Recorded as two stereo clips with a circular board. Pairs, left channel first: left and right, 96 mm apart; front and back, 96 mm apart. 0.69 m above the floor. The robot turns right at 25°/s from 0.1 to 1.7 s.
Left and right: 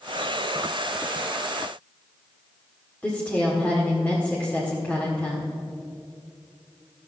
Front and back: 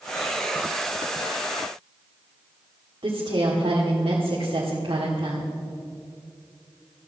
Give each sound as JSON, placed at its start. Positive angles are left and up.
{"t": 3.0, "sound": "a woman speaking", "azimuth_deg": 165, "distance_m": 1.6}